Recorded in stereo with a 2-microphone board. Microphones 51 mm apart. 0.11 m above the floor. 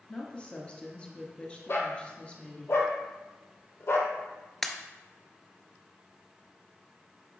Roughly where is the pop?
Centre.